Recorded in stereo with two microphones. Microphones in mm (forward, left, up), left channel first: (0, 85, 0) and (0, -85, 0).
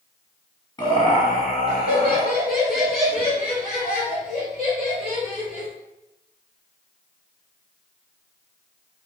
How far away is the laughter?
About 1.1 m.